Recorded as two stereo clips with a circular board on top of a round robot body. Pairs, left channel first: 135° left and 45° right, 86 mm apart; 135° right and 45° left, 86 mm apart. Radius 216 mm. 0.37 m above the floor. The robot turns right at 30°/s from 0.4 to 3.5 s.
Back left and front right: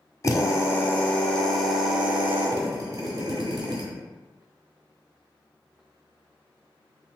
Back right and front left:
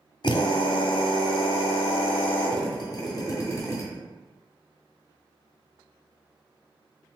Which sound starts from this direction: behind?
A drill, at 0.2 s.